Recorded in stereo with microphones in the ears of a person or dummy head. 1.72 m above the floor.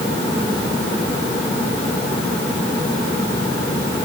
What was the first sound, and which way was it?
Only background noise.